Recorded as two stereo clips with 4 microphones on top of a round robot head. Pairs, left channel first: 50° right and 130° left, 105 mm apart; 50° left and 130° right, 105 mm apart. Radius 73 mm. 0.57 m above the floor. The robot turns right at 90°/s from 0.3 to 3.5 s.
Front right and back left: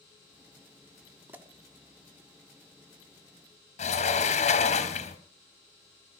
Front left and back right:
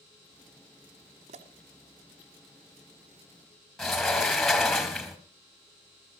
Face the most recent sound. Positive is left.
turn(degrees=-40)